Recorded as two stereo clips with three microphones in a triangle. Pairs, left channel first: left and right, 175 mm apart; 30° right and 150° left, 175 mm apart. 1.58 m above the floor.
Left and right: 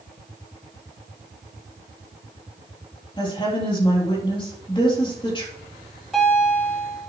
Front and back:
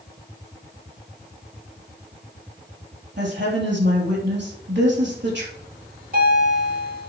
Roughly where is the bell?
Behind.